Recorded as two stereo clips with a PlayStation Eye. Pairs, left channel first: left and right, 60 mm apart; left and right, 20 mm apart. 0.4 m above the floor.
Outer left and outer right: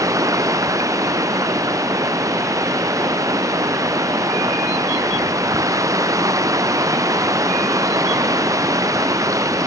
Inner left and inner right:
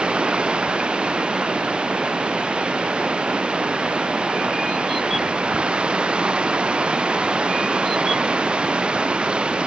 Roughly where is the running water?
Right.